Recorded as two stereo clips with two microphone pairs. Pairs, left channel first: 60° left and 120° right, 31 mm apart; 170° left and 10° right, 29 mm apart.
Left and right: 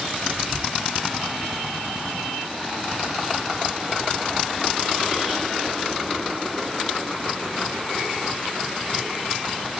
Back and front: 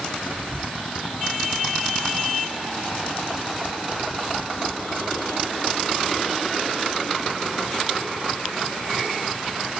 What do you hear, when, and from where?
0.3 s whispering: 40° right, 1.1 m